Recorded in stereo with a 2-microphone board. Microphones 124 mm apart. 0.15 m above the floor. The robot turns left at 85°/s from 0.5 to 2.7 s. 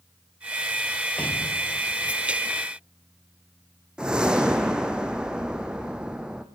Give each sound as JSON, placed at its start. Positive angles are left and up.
{"t": 1.2, "sound": "an explosion", "azimuth_deg": 170, "distance_m": 1.5}
{"t": 4.0, "sound": "a whoosh", "side_deg": -5, "distance_m": 1.9}